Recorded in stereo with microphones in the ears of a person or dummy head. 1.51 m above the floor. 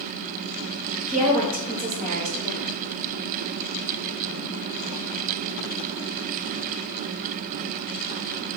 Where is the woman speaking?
40° right (ahead or behind), 1.2 m.